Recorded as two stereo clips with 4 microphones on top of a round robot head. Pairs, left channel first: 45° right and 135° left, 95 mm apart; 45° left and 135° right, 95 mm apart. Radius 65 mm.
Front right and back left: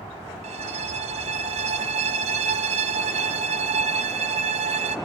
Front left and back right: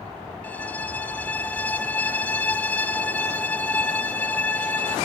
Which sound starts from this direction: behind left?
A violin, at 0.4 s.